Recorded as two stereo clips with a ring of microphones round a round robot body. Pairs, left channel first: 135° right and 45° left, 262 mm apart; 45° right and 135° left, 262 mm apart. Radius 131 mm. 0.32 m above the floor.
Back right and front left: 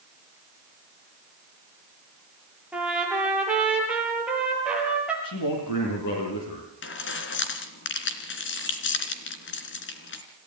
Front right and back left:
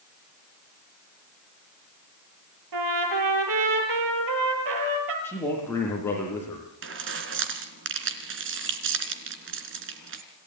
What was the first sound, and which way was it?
A trumpet, 130° left.